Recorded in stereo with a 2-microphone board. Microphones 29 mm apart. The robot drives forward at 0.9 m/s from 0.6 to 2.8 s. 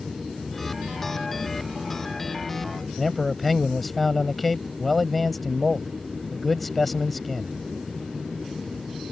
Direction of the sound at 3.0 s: 5° left (ahead or behind).